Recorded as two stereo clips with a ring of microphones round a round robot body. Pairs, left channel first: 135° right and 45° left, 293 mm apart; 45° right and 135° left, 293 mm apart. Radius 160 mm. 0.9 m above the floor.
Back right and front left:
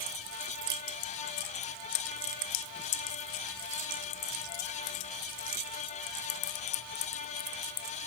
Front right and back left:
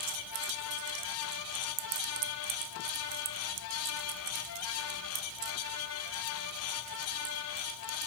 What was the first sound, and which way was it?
Only background noise.